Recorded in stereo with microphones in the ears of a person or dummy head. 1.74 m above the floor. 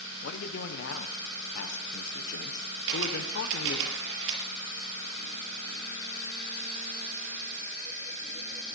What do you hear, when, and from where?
0.2 s a man speaking: 65° left (ahead or behind), 1.4 m
2.9 s a camera shutter: 65° right (ahead or behind), 5.5 m